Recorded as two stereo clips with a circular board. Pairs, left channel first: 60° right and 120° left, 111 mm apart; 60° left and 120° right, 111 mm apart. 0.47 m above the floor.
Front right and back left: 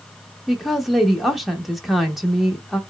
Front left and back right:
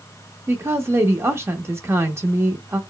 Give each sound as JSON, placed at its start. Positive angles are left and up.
{"t": 0.5, "sound": "a woman speaking", "azimuth_deg": -150, "distance_m": 0.8}